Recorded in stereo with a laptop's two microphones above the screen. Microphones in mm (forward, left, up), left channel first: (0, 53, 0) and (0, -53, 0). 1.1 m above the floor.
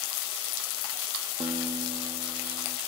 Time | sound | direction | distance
1.4 | a guitar | 60° right (ahead or behind) | 0.8 m